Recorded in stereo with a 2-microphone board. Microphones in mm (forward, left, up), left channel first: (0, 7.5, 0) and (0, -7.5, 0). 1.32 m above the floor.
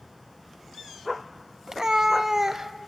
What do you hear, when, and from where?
1.7 s a cat meowing: 40° right (ahead or behind), 0.9 m; by 2.7 s 30° right (ahead or behind), 1.1 m